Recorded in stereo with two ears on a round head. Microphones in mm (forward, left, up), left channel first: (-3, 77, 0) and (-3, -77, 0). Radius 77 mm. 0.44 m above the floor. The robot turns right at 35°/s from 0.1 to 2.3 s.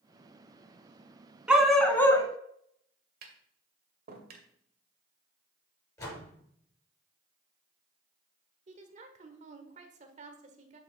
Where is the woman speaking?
45° right (ahead or behind), 1.5 m.